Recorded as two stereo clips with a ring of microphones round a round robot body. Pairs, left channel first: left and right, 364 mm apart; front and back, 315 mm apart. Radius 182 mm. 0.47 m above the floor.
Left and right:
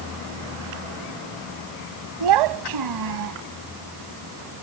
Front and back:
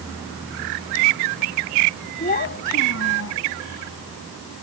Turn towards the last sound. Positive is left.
turn(degrees=-50)